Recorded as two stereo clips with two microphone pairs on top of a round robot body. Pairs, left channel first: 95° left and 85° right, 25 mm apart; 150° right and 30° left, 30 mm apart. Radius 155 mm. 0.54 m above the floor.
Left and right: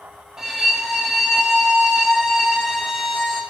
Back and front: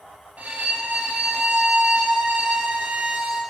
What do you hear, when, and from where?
0.4 s a violin: 15° right, 2.0 m